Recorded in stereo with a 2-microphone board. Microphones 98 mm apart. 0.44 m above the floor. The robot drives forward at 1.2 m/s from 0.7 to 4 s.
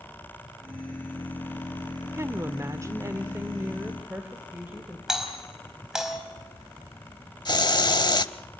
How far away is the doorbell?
About 4 m.